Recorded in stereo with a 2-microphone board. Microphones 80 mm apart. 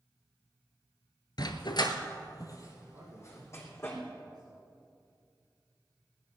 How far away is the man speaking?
About 3.5 m.